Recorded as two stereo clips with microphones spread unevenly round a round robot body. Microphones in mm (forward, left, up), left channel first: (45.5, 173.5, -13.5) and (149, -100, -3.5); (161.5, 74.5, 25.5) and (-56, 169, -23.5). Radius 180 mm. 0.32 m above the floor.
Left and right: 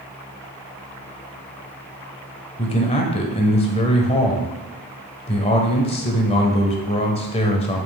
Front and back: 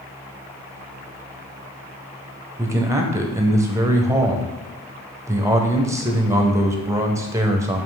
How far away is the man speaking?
About 1.0 m.